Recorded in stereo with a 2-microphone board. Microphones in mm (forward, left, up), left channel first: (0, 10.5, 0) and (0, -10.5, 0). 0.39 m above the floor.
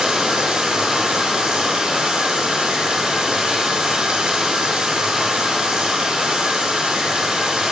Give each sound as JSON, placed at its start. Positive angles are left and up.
{"t": 0.0, "sound": "running water", "side_deg": -90, "distance_m": 5.0}